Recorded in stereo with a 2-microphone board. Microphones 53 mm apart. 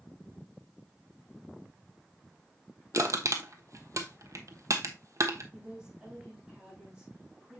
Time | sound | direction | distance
2.9 | crushing | 75° right (ahead or behind) | 1.1 m
5.5 | a woman speaking | 20° right (ahead or behind) | 4 m